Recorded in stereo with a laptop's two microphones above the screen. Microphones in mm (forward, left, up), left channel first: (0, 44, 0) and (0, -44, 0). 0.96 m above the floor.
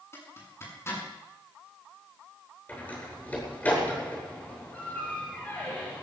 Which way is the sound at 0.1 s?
30° left (ahead or behind).